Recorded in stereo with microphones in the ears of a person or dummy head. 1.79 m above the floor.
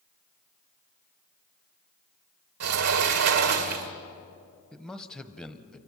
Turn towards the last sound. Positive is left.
turn(degrees=5)  # may be behind; listen again after turning